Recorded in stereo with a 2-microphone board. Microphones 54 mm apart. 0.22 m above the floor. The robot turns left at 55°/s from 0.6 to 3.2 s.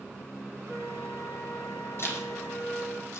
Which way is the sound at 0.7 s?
150° left.